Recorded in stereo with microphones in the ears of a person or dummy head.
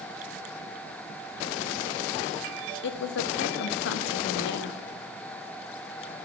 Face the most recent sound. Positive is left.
turn(degrees=70)  # may be behind; listen again after turning